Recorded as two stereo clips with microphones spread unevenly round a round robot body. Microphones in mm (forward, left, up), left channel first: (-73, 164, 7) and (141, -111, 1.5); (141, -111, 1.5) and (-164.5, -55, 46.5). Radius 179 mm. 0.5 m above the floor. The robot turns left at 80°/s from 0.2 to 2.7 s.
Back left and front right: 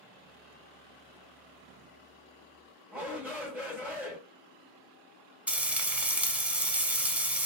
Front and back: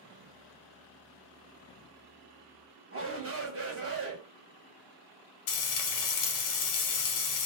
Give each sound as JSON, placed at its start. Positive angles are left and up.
{"t": 2.9, "sound": "a shout", "azimuth_deg": -140, "distance_m": 1.3}
{"t": 5.5, "sound": "frying", "azimuth_deg": 35, "distance_m": 0.6}